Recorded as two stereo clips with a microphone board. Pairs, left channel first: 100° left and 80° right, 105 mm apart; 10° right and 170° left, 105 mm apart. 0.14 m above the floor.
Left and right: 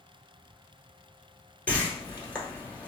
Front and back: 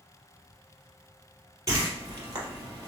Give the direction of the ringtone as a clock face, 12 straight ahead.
I don't hear a ringtone.